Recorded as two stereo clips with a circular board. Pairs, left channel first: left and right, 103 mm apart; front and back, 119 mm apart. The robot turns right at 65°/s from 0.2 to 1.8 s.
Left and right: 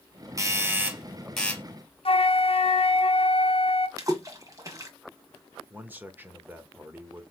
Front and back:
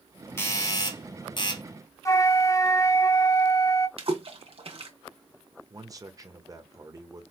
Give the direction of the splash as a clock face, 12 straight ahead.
5 o'clock.